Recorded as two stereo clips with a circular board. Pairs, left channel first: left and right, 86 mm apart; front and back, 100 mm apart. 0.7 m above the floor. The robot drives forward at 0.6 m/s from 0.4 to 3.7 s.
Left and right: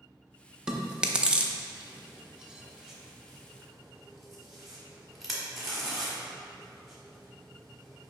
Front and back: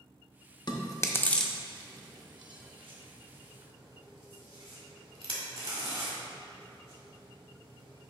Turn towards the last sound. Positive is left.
turn(degrees=-175)